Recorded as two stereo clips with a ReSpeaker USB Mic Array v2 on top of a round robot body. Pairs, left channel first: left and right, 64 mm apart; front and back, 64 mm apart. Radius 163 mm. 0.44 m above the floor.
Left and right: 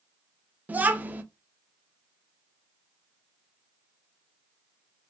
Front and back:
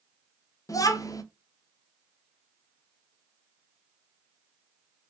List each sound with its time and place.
0.7 s a child speaking: 25° right, 0.6 m